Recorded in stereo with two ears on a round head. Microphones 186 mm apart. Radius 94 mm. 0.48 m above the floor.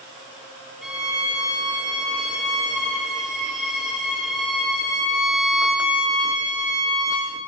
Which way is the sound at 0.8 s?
Centre (ahead or behind).